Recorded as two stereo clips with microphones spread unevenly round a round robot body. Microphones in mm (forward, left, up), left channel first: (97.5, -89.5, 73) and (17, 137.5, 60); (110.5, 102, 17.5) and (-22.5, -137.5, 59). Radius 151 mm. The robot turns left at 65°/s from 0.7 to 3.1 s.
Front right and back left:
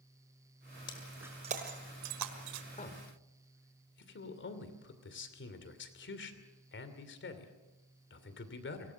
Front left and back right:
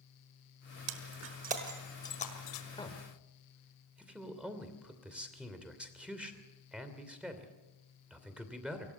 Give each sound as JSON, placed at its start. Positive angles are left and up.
{"t": 0.9, "sound": "breaking glass", "azimuth_deg": -145, "distance_m": 1.4}
{"t": 2.7, "sound": "a man speaking", "azimuth_deg": -5, "distance_m": 3.0}